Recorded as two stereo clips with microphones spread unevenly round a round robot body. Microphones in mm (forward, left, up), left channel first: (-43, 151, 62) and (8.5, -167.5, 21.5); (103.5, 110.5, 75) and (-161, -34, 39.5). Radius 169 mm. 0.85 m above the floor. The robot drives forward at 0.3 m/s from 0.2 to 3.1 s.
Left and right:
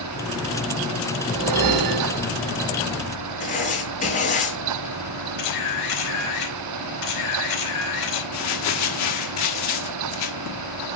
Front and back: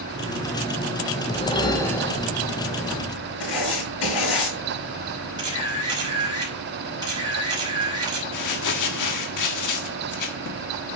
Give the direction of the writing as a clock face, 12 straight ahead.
11 o'clock.